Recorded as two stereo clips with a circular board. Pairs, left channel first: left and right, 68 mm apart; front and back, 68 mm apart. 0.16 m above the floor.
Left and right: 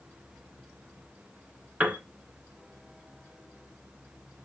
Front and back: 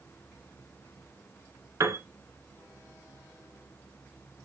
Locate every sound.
1.8 s a piano: 150° right, 1.9 m